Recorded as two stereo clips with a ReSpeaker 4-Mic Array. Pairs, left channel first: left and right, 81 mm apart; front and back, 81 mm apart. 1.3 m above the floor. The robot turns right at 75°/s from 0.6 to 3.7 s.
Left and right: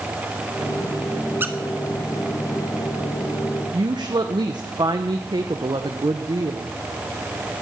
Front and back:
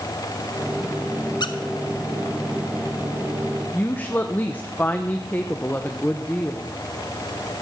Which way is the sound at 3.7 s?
65° right.